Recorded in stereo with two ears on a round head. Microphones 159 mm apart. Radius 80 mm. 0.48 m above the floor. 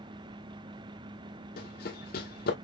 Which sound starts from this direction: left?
Running footsteps, at 1.6 s.